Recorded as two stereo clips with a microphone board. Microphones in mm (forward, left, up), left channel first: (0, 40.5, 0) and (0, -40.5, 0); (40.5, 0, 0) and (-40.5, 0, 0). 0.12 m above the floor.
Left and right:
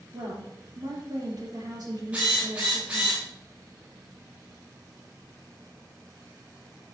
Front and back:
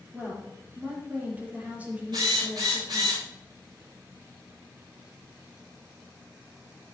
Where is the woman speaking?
110° right, 4 m.